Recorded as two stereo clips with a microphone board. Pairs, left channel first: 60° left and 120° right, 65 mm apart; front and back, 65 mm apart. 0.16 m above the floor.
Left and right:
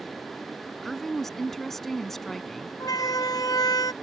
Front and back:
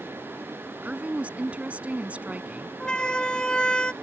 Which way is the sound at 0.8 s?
140° left.